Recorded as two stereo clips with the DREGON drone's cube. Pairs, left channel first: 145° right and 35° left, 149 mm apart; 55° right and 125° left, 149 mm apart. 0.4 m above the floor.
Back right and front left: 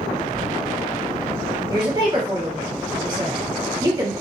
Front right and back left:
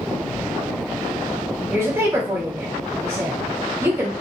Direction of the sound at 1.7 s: 65° left.